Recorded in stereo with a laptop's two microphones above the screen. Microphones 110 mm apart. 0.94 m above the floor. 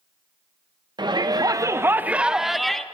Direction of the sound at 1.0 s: 40° right (ahead or behind).